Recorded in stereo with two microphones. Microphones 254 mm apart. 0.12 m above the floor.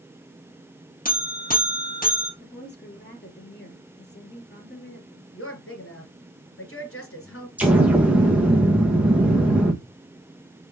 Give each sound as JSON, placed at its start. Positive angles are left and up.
{"t": 1.1, "sound": "a buzzer", "side_deg": 30, "distance_m": 1.9}
{"t": 2.4, "sound": "a woman speaking", "side_deg": 40, "distance_m": 2.5}
{"t": 5.3, "sound": "a woman speaking", "side_deg": 50, "distance_m": 2.5}
{"t": 7.6, "sound": "an explosion", "side_deg": -5, "distance_m": 1.5}